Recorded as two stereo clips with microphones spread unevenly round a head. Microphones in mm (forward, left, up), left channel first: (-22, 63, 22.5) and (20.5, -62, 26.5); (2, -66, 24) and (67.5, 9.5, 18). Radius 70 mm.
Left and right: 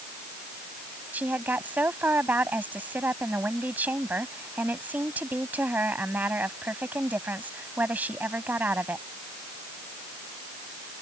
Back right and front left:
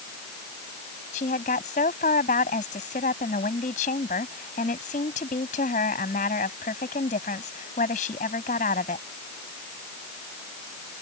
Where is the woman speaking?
150° right.